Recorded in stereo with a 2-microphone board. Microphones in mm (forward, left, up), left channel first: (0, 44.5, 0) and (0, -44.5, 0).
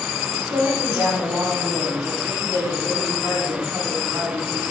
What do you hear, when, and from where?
0.3 s a woman speaking: 15° right (ahead or behind), 5.5 m; by 4.7 s 40° right (ahead or behind), 6 m